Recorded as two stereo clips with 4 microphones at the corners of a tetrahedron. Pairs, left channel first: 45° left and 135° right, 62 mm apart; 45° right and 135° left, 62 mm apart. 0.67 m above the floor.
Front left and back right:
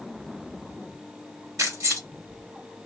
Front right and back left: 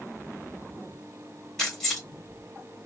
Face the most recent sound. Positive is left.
turn(degrees=-125)